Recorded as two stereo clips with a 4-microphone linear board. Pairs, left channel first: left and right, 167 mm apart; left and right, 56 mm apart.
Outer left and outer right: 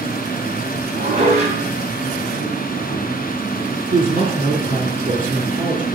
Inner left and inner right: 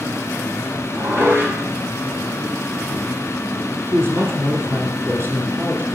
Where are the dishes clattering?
40° right (ahead or behind), 6 m.